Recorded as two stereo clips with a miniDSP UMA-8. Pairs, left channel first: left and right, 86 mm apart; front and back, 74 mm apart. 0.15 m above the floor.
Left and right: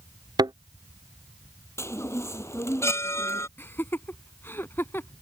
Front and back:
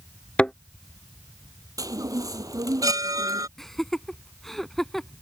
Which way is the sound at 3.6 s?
80° left.